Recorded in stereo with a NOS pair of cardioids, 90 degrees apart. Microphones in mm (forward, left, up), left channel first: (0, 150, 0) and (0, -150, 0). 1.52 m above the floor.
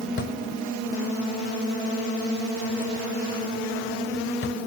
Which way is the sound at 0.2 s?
45° left.